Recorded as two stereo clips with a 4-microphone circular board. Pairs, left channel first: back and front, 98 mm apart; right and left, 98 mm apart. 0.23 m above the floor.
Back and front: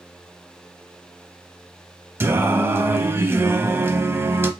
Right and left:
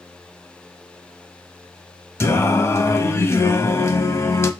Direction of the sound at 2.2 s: 50° right.